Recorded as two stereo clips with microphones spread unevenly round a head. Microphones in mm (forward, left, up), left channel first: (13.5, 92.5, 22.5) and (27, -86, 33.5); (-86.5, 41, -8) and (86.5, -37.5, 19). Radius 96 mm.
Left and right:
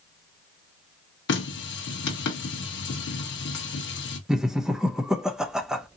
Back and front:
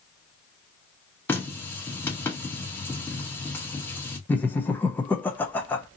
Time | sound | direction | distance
1.3 | a running tap | 75° left | 0.9 m
4.3 | laughter | 175° right | 0.6 m